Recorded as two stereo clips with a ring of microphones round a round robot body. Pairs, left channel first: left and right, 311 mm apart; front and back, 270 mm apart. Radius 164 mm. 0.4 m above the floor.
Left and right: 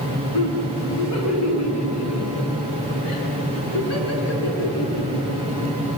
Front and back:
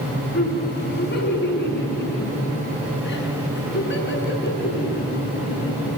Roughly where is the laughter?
Ahead left.